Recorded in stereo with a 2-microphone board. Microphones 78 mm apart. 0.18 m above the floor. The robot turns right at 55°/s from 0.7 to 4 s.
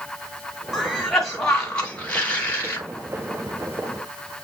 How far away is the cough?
About 1.4 m.